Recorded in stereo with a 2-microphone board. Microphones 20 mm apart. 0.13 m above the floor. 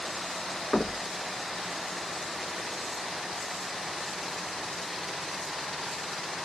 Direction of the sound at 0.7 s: 30° left (ahead or behind).